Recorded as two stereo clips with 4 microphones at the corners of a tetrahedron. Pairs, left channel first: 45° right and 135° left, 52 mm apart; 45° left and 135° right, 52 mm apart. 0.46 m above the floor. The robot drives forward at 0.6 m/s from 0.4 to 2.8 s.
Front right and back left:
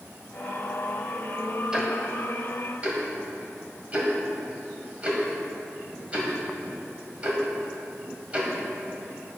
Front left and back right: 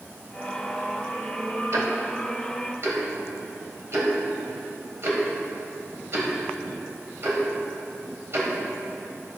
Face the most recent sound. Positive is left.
turn(degrees=-165)